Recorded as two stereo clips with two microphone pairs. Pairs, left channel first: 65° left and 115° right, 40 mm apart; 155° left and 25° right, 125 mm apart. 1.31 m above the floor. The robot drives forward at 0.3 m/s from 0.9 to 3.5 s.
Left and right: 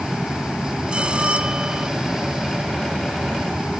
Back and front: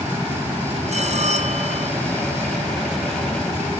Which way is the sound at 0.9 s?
50° right.